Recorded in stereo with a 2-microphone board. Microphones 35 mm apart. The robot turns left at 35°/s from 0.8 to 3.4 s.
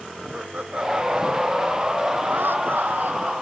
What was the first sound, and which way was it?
Laughter, 35° right.